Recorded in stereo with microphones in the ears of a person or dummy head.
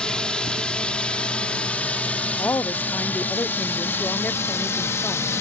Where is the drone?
5° left (ahead or behind); by 5.4 s 15° left (ahead or behind).